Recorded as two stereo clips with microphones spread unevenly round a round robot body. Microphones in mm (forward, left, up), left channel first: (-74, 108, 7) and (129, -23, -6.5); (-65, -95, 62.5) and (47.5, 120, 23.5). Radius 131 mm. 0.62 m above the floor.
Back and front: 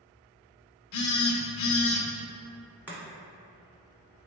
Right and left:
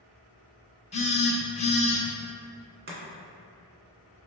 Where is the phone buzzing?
175° left, 0.6 m.